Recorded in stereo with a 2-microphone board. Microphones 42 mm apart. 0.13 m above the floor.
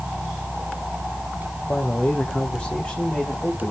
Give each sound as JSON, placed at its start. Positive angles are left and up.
{"t": 1.7, "sound": "a man speaking", "side_deg": 40, "distance_m": 6.0}